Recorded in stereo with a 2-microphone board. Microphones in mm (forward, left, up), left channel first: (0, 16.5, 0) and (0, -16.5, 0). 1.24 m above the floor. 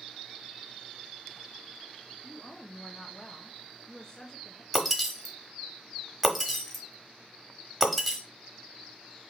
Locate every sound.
2.2 s a woman speaking: 25° left (ahead or behind), 0.5 m
4.7 s breaking glass: centre (ahead or behind), 1.1 m